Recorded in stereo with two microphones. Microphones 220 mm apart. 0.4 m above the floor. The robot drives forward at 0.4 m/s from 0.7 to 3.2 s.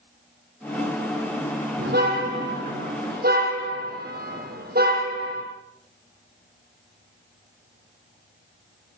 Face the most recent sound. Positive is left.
turn(degrees=-45)  # may be behind; listen again after turning